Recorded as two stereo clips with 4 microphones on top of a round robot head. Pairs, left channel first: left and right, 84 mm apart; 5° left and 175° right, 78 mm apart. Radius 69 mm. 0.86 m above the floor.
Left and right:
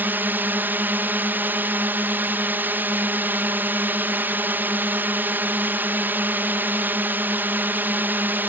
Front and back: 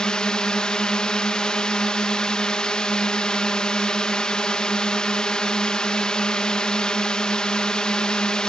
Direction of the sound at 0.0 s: 55° right.